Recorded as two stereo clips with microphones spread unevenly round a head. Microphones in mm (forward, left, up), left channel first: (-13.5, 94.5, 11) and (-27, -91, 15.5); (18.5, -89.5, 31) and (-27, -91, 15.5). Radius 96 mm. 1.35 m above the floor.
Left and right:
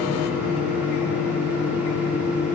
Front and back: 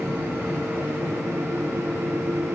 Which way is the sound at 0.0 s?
175° right.